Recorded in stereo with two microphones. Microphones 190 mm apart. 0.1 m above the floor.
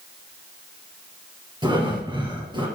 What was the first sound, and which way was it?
Breathing, 25° right (ahead or behind).